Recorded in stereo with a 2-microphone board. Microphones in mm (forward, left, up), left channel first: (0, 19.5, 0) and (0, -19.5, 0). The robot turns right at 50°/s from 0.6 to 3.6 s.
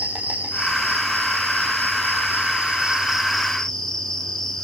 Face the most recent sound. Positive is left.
turn(degrees=15)